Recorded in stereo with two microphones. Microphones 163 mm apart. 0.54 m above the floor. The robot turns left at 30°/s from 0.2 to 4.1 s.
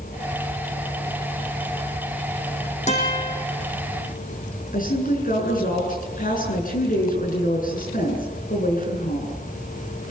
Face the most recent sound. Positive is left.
turn(degrees=60)  # may be behind; listen again after turning